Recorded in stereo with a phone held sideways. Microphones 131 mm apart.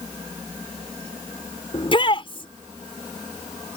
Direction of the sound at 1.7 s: 40° left (ahead or behind).